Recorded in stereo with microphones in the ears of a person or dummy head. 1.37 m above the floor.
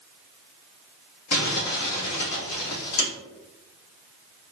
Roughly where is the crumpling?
Left.